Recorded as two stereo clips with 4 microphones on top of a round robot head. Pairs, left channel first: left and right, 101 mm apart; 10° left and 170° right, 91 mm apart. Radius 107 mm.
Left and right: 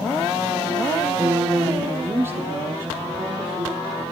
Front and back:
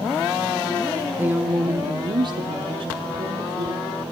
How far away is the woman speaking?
About 0.7 m.